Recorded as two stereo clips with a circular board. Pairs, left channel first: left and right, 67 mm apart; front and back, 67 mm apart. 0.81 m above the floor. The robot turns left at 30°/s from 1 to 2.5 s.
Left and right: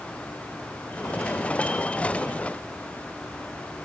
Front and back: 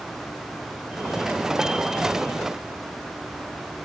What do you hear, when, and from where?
Only background noise.